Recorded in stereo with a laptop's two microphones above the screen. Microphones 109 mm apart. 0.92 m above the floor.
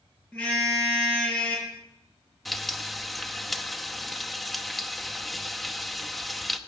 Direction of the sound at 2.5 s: Centre (ahead or behind).